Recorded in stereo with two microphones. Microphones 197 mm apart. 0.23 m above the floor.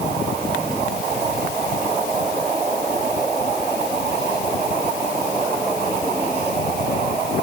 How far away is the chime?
No chime in this recording.